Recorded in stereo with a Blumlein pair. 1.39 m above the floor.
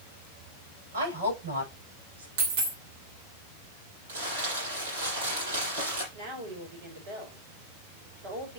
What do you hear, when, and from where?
0.9 s a woman speaking: 70° right, 8.5 m
2.4 s a dropped coin: 50° right, 2.5 m
4.1 s crumpling: 65° right, 7 m
6.1 s a woman speaking: 50° right, 5.5 m